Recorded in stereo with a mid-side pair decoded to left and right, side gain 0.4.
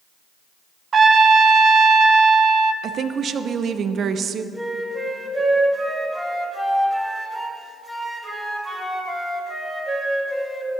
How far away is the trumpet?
About 0.7 m.